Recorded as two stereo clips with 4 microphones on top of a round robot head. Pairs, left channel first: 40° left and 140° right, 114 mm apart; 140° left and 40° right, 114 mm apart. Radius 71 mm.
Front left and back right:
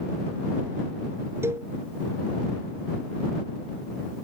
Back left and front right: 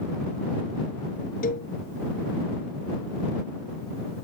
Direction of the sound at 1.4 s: 150° left.